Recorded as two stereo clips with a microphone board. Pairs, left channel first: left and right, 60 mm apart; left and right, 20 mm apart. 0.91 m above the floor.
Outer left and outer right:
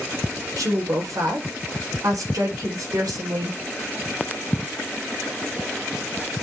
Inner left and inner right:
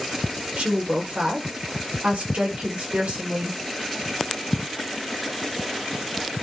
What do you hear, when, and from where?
0.6 s a woman speaking: 80° right, 3 m